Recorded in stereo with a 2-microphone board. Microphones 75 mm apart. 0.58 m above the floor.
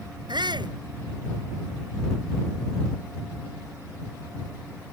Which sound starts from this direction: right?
A shout, at 0.3 s.